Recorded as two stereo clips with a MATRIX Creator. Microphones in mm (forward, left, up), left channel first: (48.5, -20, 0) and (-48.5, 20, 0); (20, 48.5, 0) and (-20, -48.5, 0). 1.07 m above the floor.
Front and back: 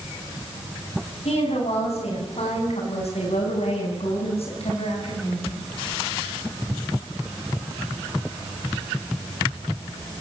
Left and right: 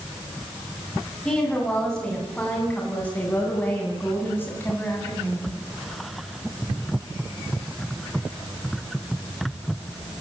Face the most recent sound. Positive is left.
turn(degrees=0)